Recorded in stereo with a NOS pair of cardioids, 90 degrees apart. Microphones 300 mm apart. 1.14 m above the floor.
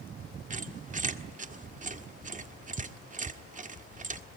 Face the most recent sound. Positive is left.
turn(degrees=-25)